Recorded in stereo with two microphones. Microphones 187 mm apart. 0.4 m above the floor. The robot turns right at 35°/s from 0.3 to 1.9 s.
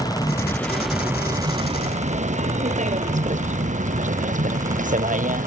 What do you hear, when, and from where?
0.0 s a vehicle: 20° left (ahead or behind); by 5.5 s 45° right (ahead or behind)